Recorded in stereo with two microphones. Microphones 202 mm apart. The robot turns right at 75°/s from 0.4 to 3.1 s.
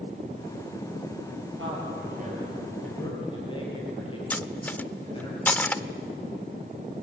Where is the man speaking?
85° right, 9 m; by 5.3 s 25° left (ahead or behind), 9 m.